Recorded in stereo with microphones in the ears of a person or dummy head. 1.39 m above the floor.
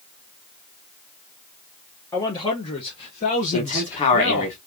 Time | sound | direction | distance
2.1 | a man speaking | 15° left (ahead or behind) | 1.1 m
3.5 | a man speaking | 35° left (ahead or behind) | 1.8 m